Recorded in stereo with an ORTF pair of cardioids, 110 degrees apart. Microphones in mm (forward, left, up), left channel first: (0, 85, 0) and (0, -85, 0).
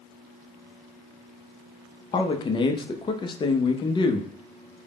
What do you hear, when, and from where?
2.1 s a man speaking: 30° left, 0.6 m